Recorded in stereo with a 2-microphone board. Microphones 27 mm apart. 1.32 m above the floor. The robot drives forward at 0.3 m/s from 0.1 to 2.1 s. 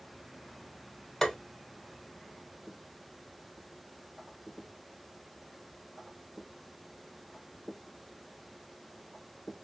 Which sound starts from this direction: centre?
Tapping, at 1.2 s.